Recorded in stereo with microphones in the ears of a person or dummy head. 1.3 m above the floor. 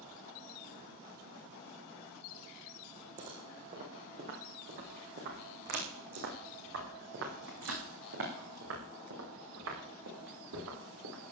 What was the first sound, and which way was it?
Footsteps, 40° right (ahead or behind).